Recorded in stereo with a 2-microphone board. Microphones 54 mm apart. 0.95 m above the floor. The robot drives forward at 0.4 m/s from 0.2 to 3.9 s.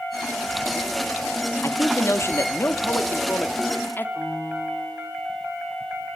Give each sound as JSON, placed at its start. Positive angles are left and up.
{"t": 1.6, "sound": "a man speaking", "side_deg": 60, "distance_m": 1.7}
{"t": 4.2, "sound": "a piano", "side_deg": 45, "distance_m": 3.0}